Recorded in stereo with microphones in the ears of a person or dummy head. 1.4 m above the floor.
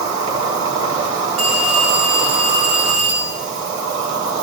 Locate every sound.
0.0 s an insect: 25° right (ahead or behind), 2.5 m
1.4 s a phone ringing: 35° right (ahead or behind), 6 m